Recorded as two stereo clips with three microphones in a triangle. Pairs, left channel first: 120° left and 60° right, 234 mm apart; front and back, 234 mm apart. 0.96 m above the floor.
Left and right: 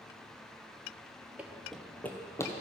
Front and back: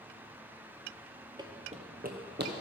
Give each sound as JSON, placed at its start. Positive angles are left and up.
{"t": 1.4, "sound": "running footsteps", "azimuth_deg": -135, "distance_m": 1.0}